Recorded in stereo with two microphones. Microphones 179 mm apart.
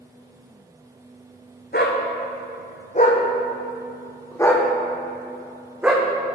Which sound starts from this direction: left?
A dog barking, at 1.7 s.